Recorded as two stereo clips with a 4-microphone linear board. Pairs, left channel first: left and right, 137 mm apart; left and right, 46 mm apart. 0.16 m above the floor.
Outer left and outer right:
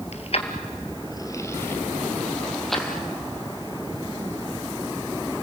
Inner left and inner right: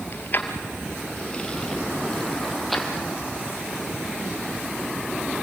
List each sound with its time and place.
0.1 s keys jangling: 50° left (ahead or behind), 2 m; by 3.0 s centre (ahead or behind), 3.5 m